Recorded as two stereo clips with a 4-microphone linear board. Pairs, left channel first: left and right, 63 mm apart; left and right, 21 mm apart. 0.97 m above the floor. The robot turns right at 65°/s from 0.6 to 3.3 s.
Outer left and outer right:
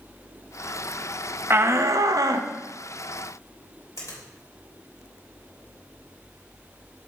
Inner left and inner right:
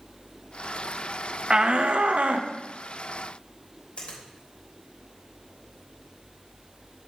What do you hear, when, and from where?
1.5 s a shout: 140° right, 0.8 m; by 2.5 s 70° right, 0.8 m
4.0 s a finger snap: 55° left (ahead or behind), 3.5 m